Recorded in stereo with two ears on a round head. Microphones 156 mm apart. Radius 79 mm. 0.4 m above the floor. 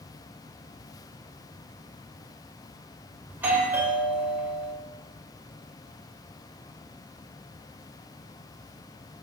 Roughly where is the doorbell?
Centre.